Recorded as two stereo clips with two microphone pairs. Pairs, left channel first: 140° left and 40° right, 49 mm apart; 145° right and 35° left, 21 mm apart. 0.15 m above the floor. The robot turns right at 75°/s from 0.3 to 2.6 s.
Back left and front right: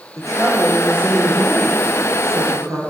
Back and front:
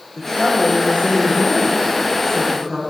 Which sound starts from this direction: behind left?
A woman speaking, at 0.2 s.